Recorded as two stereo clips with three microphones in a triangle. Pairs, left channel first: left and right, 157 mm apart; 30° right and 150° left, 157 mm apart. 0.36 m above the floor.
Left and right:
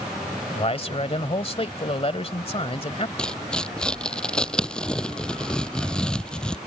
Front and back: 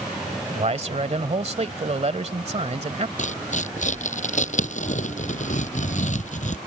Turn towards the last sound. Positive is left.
turn(degrees=5)